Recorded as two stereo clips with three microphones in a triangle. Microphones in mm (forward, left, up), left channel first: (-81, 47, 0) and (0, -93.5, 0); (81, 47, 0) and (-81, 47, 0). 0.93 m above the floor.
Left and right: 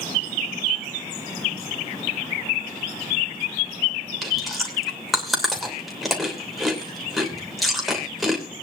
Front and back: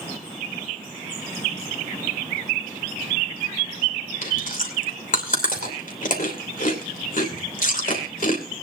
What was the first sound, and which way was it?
Chewing, 30° left.